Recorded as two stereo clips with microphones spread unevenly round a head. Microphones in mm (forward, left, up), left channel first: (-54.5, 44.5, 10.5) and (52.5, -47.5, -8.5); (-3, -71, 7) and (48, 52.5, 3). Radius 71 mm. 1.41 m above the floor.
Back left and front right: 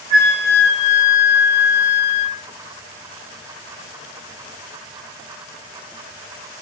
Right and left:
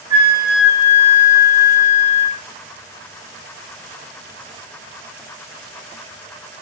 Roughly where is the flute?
Behind.